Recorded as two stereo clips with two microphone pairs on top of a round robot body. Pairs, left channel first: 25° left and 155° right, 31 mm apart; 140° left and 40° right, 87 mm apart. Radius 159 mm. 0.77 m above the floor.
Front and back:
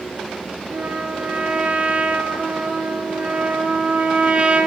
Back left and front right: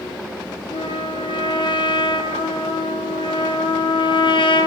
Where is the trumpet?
160° left, 6 m.